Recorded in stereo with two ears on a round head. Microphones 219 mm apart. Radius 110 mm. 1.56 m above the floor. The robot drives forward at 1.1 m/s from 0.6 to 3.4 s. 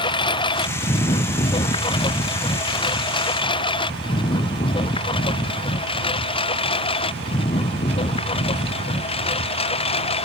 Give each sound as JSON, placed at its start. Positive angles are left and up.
{"t": 0.0, "sound": "a lawn mower", "side_deg": 20}